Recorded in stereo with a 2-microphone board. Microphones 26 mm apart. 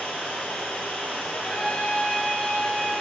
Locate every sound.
0.0 s running water: 70° left (ahead or behind), 2.5 m
1.3 s a trumpet: 40° left (ahead or behind), 2 m